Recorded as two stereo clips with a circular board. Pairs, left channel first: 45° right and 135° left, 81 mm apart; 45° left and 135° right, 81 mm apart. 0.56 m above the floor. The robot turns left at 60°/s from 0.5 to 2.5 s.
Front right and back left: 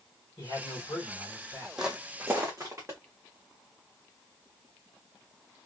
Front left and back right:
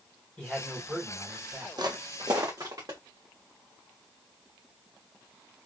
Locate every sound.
0.4 s a man speaking: 25° right, 2.5 m; by 1.7 s 95° right, 2.5 m
1.8 s footsteps: 145° right, 0.9 m; by 3.0 s 170° right, 2.5 m